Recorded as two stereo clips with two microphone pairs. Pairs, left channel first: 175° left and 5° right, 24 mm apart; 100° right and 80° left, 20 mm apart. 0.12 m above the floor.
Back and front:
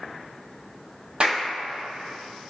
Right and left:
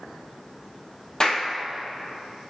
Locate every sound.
1.2 s a clap: 50° right, 4 m